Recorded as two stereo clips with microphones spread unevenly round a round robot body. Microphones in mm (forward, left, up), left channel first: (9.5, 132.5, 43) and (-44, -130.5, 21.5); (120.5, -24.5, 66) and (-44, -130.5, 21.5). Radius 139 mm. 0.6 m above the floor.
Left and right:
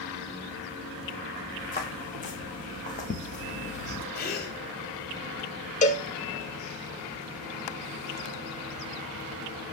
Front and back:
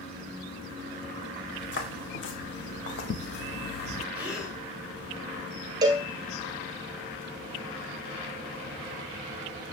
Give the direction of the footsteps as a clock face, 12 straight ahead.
11 o'clock.